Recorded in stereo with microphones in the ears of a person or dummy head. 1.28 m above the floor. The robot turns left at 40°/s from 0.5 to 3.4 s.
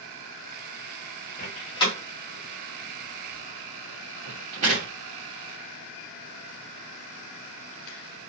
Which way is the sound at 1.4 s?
40° left (ahead or behind).